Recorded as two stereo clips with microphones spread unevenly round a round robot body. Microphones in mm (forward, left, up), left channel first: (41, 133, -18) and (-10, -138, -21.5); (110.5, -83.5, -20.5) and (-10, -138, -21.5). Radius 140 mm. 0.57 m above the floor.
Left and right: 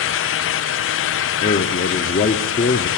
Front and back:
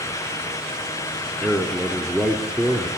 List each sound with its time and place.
1.4 s a man speaking: 105° left, 0.7 m